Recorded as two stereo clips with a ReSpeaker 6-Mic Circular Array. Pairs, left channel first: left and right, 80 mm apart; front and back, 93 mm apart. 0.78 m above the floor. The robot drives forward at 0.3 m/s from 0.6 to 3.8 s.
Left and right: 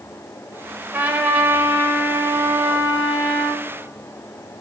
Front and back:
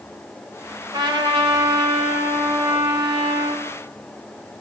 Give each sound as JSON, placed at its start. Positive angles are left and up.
{"t": 0.9, "sound": "a trumpet", "azimuth_deg": -155, "distance_m": 1.6}